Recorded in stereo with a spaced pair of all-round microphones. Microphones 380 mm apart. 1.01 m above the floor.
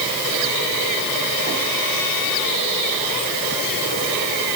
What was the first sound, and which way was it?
Only background noise.